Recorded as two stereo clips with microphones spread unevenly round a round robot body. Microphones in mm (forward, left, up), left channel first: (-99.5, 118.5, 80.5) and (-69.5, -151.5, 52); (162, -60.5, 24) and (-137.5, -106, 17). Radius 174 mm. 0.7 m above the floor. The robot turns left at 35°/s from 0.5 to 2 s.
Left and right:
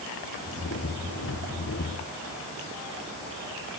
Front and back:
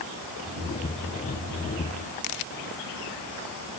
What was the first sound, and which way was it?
Only background noise.